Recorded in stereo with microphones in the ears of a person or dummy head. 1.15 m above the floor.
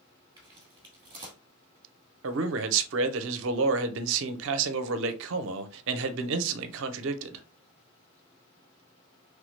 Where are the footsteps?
20° right (ahead or behind), 1.6 m.